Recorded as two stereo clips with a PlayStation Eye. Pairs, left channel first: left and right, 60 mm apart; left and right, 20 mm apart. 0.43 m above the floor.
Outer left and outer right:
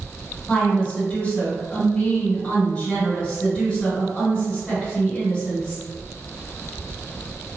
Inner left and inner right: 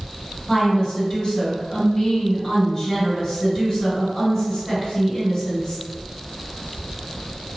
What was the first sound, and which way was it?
A woman speaking, 25° left (ahead or behind).